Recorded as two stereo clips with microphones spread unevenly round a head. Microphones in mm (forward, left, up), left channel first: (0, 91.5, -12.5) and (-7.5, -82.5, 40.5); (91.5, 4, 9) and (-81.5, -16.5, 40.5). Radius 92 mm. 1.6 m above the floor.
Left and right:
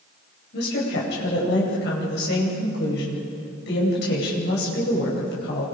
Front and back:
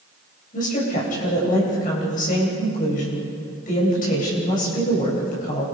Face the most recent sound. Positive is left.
turn(degrees=55)